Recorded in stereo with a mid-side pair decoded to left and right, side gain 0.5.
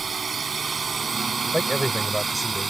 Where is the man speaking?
Straight ahead.